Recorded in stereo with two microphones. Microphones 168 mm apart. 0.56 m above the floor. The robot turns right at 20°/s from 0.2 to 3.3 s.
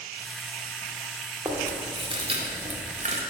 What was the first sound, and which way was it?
Chewing, 20° right (ahead or behind).